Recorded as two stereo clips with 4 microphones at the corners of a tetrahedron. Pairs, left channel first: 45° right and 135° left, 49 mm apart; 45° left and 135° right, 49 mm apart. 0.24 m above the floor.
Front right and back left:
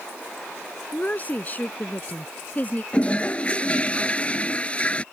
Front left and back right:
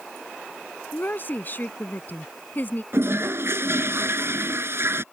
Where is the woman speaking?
5° left.